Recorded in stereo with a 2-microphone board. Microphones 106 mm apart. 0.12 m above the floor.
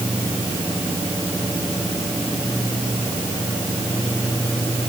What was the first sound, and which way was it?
Only background noise.